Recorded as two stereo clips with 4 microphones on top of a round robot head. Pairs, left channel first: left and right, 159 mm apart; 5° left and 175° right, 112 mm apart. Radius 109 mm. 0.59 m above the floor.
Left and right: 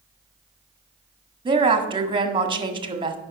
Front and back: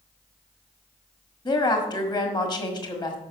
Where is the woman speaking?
35° right, 1.7 m.